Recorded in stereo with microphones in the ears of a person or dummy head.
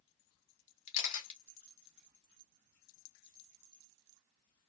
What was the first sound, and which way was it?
A camera shutter, 65° left (ahead or behind).